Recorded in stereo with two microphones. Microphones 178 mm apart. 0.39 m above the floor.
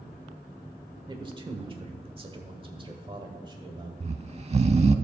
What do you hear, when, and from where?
1.1 s a man speaking: 25° right (ahead or behind), 1.3 m
4.0 s snoring: 35° right (ahead or behind), 0.5 m